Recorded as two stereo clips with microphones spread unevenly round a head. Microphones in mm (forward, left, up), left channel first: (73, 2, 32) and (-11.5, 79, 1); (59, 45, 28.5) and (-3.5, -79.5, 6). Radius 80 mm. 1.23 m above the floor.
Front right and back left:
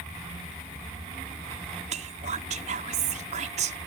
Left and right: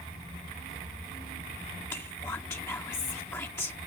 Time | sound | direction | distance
1.9 | whispering | 140° left | ?